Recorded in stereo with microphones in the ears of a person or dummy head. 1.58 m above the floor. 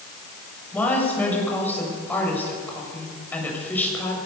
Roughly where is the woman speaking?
Centre.